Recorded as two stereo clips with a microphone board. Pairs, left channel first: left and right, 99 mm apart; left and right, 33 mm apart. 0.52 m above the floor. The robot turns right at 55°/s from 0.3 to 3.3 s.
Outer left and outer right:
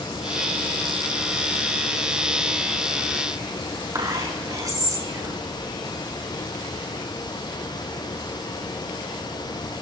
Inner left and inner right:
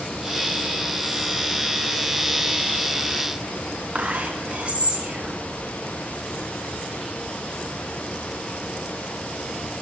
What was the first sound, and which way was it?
Whispering, 40° right (ahead or behind).